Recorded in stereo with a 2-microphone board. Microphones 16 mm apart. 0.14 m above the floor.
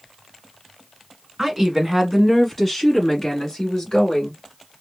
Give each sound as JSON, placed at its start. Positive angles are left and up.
{"t": 1.4, "sound": "a woman speaking", "side_deg": -20, "distance_m": 1.4}